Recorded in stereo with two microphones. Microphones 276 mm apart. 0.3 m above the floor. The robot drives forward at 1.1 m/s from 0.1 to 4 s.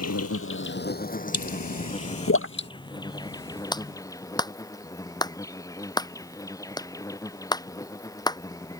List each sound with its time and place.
0.0 s an insect: 65° left (ahead or behind); by 8.8 s 10° left (ahead or behind)
1.3 s a pop: 75° left (ahead or behind); by 2.7 s 40° left (ahead or behind)
3.7 s a clap: 15° left (ahead or behind)